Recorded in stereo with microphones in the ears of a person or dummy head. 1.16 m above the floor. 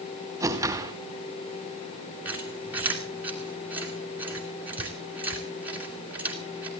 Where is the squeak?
10° right (ahead or behind), 2.5 m.